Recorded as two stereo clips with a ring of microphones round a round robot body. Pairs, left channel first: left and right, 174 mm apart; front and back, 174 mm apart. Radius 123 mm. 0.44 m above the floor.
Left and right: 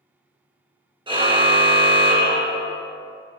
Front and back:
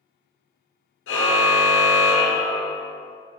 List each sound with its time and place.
1.1 s a car horn: 30° right, 4 m